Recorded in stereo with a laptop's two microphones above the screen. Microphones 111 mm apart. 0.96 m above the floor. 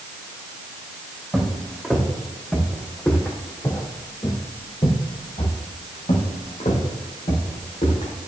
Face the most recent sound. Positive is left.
turn(degrees=75)  # may be behind; listen again after turning